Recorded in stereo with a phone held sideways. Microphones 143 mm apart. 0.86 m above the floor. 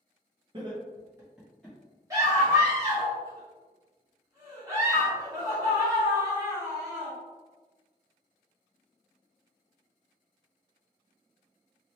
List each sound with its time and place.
0.5 s laughter: 35° right (ahead or behind), 0.8 m; by 1.8 s 5° left (ahead or behind), 0.9 m
2.1 s a scream: 20° right (ahead or behind), 1.7 m